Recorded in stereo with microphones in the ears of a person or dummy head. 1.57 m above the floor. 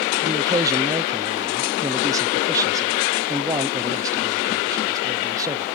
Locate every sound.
0.2 s a man speaking: 20° right (ahead or behind)